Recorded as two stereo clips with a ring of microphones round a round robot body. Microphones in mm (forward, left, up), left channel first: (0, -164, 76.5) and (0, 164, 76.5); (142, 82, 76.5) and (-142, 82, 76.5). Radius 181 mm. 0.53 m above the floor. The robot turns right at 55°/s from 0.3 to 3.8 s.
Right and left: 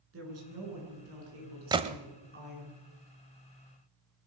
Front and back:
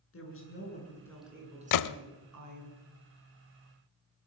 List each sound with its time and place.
0.1 s a woman speaking: 40° left, 8.5 m; by 2.7 s 175° left, 8.5 m
1.7 s a gunshot: 10° left, 0.7 m; by 2.0 s 25° left, 0.7 m